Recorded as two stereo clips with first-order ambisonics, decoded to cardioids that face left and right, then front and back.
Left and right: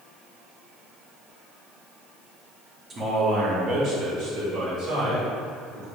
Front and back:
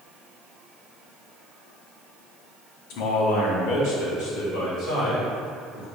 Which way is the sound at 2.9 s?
20° right.